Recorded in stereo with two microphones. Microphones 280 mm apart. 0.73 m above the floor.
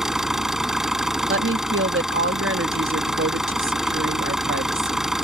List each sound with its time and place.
0.0 s an engine running: centre (ahead or behind)
1.3 s a woman speaking: 45° right (ahead or behind)